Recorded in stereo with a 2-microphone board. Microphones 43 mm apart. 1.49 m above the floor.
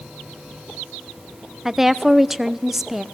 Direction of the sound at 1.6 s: 5° right (ahead or behind).